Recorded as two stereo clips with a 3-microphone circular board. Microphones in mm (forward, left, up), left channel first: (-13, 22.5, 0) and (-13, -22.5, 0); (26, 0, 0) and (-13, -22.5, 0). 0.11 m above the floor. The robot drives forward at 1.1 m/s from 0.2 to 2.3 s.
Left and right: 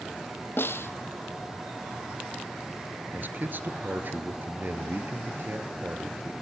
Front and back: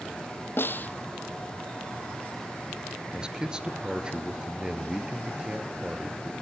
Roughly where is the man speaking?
Right.